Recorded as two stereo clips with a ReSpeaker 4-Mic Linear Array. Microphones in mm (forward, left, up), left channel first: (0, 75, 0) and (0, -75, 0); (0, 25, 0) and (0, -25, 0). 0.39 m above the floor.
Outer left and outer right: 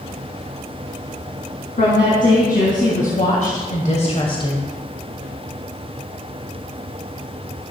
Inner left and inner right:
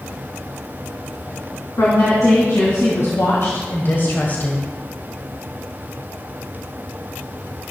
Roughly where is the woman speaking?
Left.